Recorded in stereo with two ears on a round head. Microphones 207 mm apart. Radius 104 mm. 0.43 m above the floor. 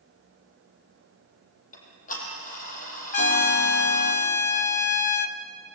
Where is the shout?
No shout in this recording.